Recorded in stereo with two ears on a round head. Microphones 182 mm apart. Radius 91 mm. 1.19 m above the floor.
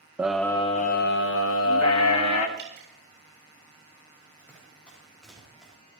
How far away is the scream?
About 0.6 m.